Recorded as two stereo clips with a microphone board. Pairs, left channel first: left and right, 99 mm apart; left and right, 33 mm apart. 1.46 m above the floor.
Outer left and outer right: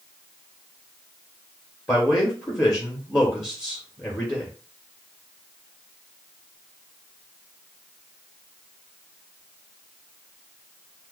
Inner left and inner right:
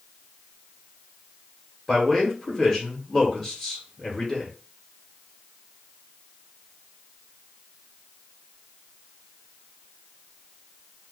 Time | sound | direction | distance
1.9 | a man speaking | 25° left (ahead or behind) | 1.2 m